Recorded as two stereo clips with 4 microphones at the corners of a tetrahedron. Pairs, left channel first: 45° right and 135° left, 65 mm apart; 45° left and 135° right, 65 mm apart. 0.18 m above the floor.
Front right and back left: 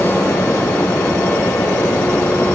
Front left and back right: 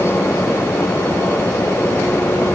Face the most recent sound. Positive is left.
No sound to turn to.